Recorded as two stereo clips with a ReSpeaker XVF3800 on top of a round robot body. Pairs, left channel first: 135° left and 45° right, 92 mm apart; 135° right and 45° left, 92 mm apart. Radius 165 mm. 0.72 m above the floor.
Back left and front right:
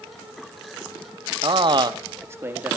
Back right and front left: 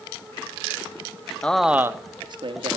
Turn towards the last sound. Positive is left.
turn(degrees=30)